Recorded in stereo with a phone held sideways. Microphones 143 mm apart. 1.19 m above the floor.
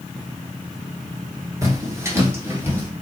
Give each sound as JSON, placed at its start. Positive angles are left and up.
{"t": 1.6, "sound": "footsteps", "side_deg": -20, "distance_m": 1.4}